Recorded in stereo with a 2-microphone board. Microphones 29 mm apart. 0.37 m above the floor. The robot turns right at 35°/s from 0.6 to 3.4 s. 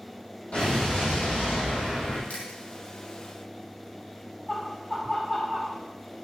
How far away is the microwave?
No microwave in this recording.